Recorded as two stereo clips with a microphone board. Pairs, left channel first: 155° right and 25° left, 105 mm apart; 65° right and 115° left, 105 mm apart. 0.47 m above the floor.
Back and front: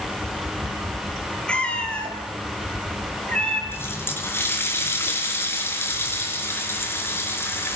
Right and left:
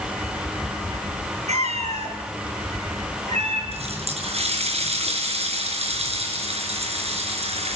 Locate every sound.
1.5 s a cat meowing: 125° left, 4 m
3.7 s a running tap: 135° left, 4.5 m